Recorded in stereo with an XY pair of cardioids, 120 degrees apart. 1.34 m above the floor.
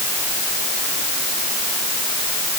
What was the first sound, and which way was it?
Only background noise.